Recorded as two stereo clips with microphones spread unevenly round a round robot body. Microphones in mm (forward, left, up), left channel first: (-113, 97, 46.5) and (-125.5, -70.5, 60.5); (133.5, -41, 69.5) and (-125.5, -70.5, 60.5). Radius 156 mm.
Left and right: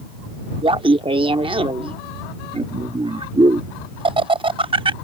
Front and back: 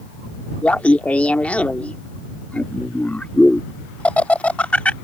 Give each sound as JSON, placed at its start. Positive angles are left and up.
{"t": 0.6, "sound": "laughter", "azimuth_deg": -75}